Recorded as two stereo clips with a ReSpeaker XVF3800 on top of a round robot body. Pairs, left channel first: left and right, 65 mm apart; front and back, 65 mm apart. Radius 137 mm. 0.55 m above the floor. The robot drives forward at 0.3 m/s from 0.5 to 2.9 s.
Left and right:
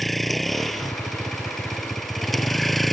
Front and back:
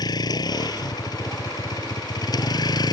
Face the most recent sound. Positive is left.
turn(degrees=0)